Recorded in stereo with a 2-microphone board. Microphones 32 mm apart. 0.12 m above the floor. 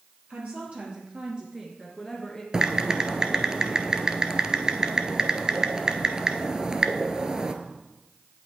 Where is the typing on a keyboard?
25° right (ahead or behind), 0.8 m.